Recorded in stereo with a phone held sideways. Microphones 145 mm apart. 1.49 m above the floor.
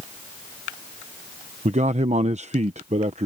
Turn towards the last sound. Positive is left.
turn(degrees=-50)  # may be behind; listen again after turning